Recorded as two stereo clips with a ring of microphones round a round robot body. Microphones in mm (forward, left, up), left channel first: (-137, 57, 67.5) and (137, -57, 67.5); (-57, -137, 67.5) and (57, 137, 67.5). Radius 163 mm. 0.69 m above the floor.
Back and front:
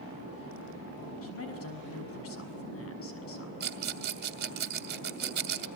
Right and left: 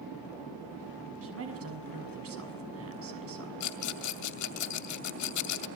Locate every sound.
1.2 s a man speaking: 110° left, 6.5 m
3.6 s a rattle: 80° right, 2 m